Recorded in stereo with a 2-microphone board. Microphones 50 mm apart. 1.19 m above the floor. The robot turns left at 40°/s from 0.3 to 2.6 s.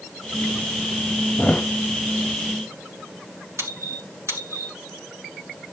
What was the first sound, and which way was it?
A thud, 20° left (ahead or behind).